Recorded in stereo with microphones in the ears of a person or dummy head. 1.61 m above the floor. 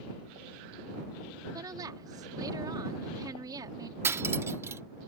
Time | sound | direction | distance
1.5 | a woman speaking | 30° right (ahead or behind) | ?
4.0 | cutlery clinking | 15° right (ahead or behind) | ?